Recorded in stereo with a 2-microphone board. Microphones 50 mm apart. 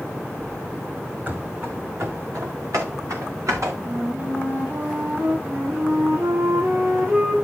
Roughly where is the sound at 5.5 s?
Right.